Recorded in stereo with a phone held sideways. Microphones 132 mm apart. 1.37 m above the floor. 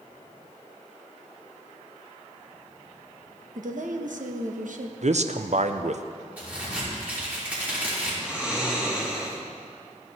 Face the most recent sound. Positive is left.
turn(degrees=-10)  # may be behind; listen again after turning